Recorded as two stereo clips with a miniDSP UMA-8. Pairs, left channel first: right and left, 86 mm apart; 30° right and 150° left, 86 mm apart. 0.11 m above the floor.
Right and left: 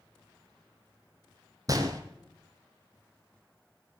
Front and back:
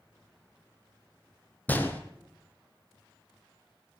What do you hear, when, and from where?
1.7 s a gunshot: 40° left, 1.2 m